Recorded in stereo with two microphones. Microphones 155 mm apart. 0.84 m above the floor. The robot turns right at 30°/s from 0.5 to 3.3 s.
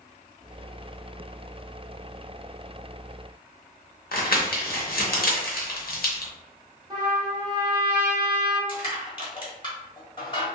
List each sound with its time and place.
4.1 s crumpling: 75° left (ahead or behind), 0.7 m
6.9 s a trumpet: 30° right (ahead or behind), 0.7 m
8.7 s crushing: 35° left (ahead or behind), 1.1 m